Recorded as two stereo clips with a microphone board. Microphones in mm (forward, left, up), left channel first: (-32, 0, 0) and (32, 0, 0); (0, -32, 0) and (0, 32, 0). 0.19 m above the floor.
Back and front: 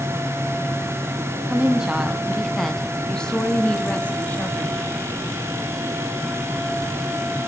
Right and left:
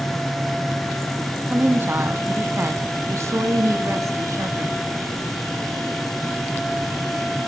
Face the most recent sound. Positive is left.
turn(degrees=115)